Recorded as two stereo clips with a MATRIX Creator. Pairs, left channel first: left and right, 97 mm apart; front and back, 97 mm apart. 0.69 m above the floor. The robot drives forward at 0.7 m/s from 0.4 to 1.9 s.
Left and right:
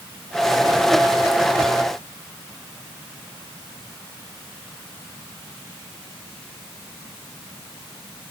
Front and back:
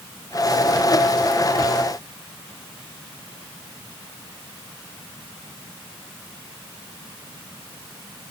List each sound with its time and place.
Only background noise.